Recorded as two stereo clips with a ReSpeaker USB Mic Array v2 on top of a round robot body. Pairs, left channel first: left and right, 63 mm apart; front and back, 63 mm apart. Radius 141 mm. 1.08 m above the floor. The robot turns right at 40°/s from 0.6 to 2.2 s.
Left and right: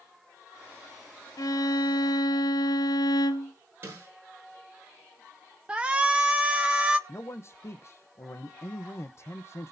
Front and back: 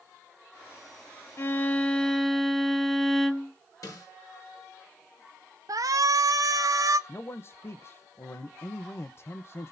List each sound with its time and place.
1.4 s a violin: 55° left, 0.8 m; by 3.5 s 90° left, 0.8 m
3.8 s a snare drum: 35° right, 8 m
5.7 s a shout: 160° right, 0.9 m
7.1 s a man speaking: 45° left, 0.8 m